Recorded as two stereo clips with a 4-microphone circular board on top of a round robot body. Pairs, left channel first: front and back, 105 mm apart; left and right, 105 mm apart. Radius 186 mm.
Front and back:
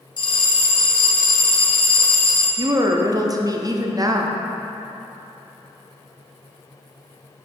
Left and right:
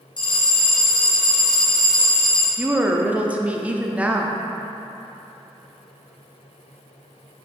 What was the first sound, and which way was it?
A bell, 45° left.